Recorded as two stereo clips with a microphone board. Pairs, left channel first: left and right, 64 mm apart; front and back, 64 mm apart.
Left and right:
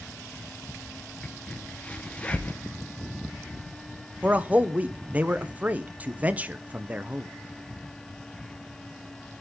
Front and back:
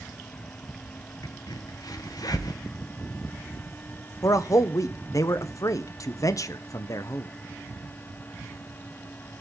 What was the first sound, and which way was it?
A crack, 20° left.